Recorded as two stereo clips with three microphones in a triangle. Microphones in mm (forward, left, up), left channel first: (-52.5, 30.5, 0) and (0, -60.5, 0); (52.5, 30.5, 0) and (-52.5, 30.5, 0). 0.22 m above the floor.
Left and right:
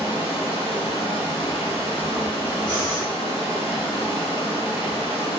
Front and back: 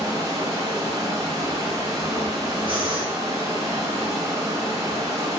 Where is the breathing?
160° right, 1.5 m.